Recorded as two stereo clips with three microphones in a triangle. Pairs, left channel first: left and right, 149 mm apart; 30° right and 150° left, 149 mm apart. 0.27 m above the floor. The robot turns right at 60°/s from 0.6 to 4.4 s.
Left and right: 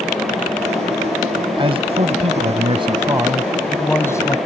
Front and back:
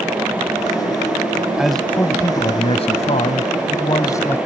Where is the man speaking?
125° right; by 4.4 s 40° left.